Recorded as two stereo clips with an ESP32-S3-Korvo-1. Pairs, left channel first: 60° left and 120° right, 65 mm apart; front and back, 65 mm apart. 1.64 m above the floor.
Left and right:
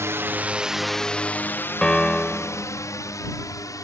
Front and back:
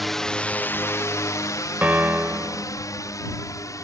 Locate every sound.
0.0 s a drone: 90° right; by 3.8 s 30° left
1.8 s a piano: 130° left